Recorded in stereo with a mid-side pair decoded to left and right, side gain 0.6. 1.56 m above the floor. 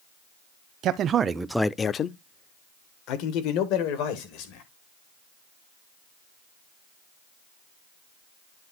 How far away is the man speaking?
About 0.9 m.